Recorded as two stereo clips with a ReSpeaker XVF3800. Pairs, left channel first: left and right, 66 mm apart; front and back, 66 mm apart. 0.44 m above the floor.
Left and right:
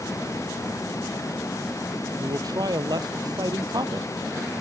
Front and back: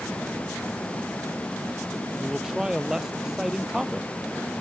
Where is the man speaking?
100° right.